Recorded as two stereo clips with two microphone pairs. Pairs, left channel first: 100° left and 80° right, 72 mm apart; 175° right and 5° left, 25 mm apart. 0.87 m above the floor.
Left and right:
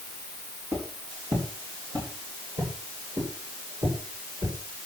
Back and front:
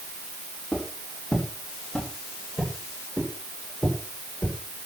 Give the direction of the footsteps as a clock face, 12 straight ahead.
4 o'clock.